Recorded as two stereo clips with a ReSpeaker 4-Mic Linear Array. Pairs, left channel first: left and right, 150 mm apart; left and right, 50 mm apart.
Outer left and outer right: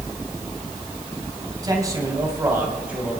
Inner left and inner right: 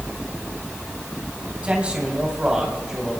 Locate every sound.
1.6 s a man speaking: 25° right (ahead or behind), 2.5 m; by 3.2 s 5° right (ahead or behind), 2.5 m